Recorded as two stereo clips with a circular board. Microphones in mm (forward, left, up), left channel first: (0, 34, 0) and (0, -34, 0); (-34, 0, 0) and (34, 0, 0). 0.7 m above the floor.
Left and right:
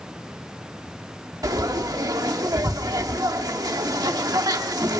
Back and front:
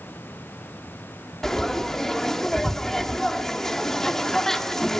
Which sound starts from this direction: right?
Frying, at 1.4 s.